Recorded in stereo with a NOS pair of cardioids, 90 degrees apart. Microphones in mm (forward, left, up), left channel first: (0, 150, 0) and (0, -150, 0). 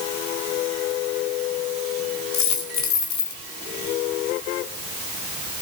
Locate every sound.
2.3 s a dropped coin: 70° left, 1.7 m